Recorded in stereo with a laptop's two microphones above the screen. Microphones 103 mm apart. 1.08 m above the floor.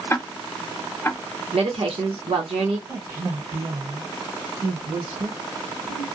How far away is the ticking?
About 0.5 m.